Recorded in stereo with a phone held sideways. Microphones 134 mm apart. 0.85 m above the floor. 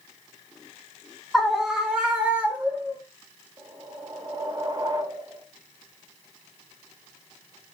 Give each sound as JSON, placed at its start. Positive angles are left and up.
{"t": 1.3, "sound": "a scream", "side_deg": 5, "distance_m": 0.7}
{"t": 3.6, "sound": "a whoosh", "side_deg": -30, "distance_m": 1.1}